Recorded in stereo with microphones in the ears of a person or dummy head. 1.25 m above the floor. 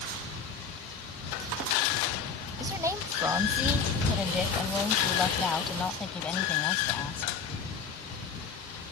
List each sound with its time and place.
2.6 s a woman speaking: 15° right (ahead or behind); by 7.3 s 15° left (ahead or behind)